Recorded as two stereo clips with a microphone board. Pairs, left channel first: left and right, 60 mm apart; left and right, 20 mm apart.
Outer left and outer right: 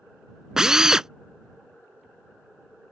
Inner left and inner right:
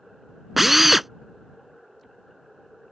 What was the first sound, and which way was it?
A drill, 10° right (ahead or behind).